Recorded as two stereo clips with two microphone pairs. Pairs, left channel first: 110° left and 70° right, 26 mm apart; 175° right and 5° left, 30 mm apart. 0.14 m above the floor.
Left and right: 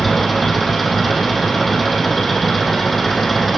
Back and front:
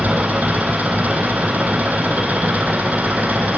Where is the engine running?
20° left, 3.5 m.